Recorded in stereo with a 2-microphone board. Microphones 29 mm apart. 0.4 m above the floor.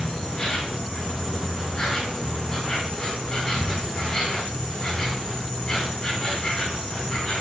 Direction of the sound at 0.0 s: 20° left (ahead or behind).